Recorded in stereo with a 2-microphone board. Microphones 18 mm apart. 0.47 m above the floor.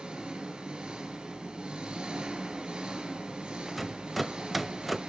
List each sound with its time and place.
0.0 s an engine running: 75° right (ahead or behind), 3.5 m
3.7 s a rattle: 5° right (ahead or behind), 0.5 m